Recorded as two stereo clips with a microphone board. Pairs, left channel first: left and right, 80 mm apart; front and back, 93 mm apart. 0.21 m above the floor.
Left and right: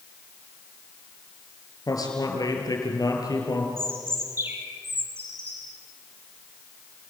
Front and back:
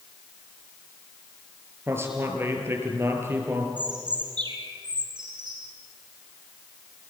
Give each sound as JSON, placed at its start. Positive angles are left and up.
{"t": 1.9, "sound": "a man speaking", "azimuth_deg": 120, "distance_m": 5.0}
{"t": 3.8, "sound": "a bird", "azimuth_deg": -145, "distance_m": 3.5}